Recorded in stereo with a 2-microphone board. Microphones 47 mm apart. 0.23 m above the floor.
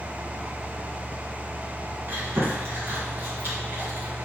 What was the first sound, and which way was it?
Chewing, 50° right (ahead or behind).